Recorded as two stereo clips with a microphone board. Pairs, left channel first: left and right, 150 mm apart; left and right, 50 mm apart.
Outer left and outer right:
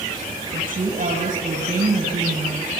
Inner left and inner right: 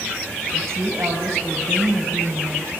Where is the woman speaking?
60° right (ahead or behind), 3 m.